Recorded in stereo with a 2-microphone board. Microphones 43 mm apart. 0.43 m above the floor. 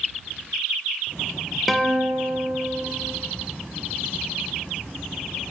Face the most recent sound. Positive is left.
turn(degrees=-5)  # may be behind; listen again after turning